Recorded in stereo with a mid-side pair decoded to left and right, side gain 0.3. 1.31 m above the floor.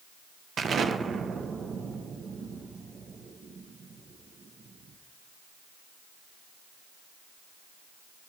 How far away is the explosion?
About 0.7 m.